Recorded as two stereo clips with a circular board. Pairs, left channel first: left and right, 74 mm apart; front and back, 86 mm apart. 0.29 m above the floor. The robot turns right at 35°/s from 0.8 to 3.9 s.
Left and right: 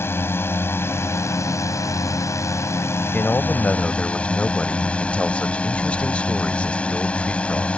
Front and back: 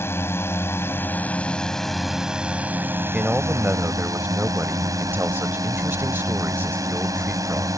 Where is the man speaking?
115° left; by 7.7 s 145° left.